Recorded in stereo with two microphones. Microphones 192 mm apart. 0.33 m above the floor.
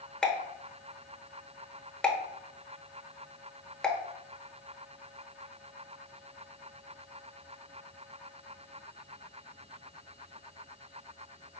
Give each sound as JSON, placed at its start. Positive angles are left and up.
{"t": 0.2, "sound": "a pop", "side_deg": 5, "distance_m": 0.8}